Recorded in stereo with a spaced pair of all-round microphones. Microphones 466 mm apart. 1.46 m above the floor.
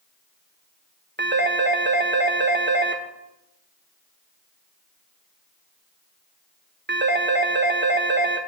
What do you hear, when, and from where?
1.2 s a phone ringing: 25° right (ahead or behind), 0.9 m